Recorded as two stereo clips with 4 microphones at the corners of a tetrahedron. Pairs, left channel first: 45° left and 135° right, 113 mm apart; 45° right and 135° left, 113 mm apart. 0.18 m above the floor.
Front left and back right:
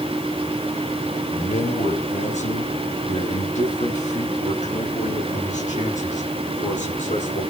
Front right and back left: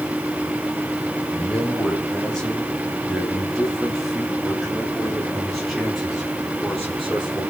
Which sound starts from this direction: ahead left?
A man speaking, at 1.3 s.